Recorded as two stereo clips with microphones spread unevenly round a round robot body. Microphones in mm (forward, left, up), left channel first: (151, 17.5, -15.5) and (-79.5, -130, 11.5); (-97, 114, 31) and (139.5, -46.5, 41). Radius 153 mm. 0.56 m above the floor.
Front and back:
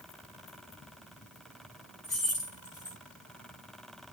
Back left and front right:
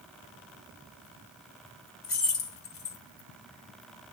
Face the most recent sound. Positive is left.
turn(degrees=110)